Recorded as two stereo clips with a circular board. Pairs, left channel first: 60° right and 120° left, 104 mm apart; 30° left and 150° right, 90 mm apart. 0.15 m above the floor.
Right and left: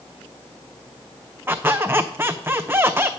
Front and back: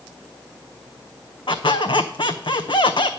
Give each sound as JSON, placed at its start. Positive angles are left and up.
{"t": 1.5, "sound": "a squeak", "azimuth_deg": 50, "distance_m": 0.7}